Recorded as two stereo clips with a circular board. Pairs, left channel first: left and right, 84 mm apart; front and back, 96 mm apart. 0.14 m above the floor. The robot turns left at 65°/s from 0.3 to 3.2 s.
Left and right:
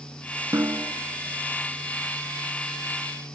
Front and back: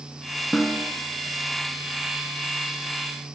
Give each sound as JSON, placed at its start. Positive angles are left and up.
{"t": 0.5, "sound": "a snare drum", "azimuth_deg": -80, "distance_m": 0.6}